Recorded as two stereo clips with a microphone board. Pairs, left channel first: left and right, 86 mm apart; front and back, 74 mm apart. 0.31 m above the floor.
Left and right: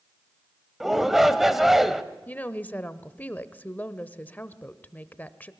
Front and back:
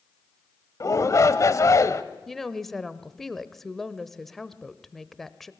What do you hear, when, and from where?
0.8 s a shout: 5° right, 1.2 m
2.3 s a woman speaking: 75° left, 0.9 m